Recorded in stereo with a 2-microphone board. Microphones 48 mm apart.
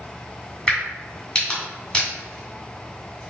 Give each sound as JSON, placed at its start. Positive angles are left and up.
{"t": 0.7, "sound": "a crack", "side_deg": 15, "distance_m": 1.7}